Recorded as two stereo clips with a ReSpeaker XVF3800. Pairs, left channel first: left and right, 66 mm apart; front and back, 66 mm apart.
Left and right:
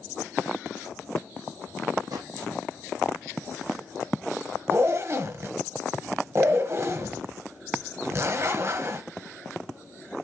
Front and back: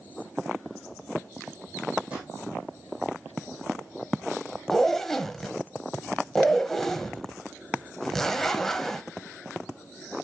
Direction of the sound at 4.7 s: 85° right.